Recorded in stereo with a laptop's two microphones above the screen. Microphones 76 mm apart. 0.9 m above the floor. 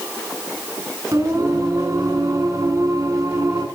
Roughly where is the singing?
Right.